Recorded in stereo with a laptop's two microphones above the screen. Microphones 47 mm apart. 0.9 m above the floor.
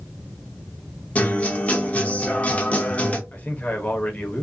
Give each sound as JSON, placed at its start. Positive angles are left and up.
{"t": 1.1, "sound": "a guitar", "side_deg": 30, "distance_m": 0.6}
{"t": 3.3, "sound": "a man speaking", "side_deg": 35, "distance_m": 0.7}